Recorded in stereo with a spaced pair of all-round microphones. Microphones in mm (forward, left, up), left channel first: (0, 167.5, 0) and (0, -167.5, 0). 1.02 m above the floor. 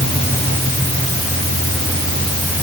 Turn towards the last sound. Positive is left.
No sound to turn to.